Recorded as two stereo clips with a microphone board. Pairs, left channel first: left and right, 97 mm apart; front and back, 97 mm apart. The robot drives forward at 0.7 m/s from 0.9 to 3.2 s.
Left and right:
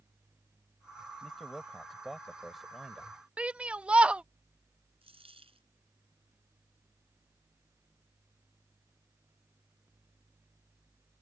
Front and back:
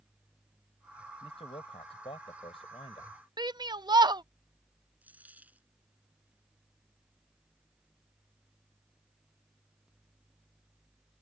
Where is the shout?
165° right.